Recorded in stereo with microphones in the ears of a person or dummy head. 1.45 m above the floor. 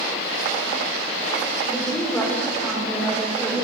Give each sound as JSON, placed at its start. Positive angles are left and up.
{"t": 1.6, "sound": "a woman speaking", "side_deg": 15, "distance_m": 6.0}